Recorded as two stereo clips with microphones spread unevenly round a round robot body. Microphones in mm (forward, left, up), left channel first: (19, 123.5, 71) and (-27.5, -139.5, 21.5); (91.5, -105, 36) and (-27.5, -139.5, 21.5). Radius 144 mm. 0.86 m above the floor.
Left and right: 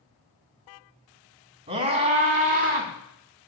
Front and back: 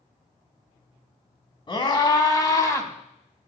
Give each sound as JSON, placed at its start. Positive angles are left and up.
{"t": 1.7, "sound": "a scream", "azimuth_deg": -35, "distance_m": 3.0}